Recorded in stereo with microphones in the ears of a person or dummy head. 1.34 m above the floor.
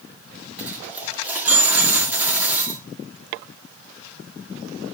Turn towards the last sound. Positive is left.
turn(degrees=-10)  # may be behind; listen again after turning